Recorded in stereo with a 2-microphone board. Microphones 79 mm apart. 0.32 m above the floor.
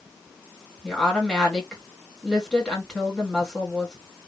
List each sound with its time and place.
0.8 s a woman speaking: 10° left (ahead or behind), 2.0 m